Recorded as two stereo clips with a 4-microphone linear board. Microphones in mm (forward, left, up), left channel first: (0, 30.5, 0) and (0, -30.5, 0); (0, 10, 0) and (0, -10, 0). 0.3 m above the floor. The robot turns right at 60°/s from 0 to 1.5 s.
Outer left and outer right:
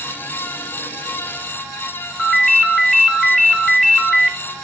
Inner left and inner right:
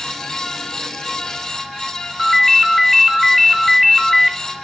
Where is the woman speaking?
I don't hear a woman speaking.